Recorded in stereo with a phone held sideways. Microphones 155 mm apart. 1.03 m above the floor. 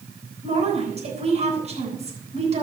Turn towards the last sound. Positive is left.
turn(degrees=-45)  # may be behind; listen again after turning